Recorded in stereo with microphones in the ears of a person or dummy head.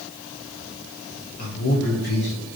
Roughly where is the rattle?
I don't hear a rattle.